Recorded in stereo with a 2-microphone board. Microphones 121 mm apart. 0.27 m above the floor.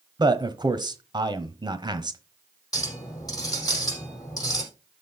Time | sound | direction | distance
0.2 | a man speaking | 35° right (ahead or behind) | 1.1 m
2.7 | a clink | 30° left (ahead or behind) | 5 m